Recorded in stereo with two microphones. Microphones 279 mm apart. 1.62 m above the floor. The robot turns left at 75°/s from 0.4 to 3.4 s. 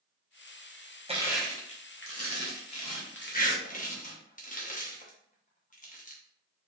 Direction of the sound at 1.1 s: 20° right (ahead or behind).